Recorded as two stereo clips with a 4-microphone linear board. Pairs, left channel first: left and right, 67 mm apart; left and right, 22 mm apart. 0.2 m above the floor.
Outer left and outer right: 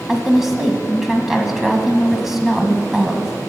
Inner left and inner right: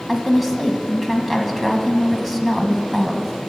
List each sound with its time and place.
0.1 s a woman speaking: 5° right (ahead or behind), 1.2 m